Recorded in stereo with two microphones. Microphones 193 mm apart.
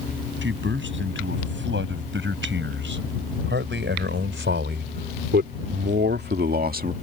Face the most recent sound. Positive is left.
turn(degrees=-45)  # may be behind; listen again after turning